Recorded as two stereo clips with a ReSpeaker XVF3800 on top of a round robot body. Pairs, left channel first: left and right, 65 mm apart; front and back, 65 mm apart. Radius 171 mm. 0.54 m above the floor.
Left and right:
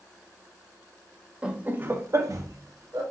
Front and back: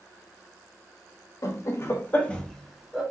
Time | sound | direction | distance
1.4 | laughter | 20° right | 1.2 m